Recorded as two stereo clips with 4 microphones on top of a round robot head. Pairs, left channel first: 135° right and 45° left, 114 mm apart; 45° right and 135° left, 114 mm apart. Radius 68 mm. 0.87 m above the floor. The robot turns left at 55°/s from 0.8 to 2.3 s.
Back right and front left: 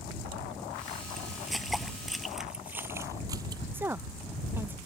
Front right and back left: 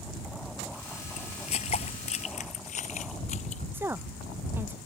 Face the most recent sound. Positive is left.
turn(degrees=90)